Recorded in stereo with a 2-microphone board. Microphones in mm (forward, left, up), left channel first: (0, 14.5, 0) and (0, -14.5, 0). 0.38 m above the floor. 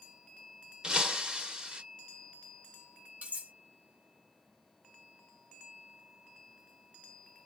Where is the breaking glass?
30° right (ahead or behind), 0.6 m.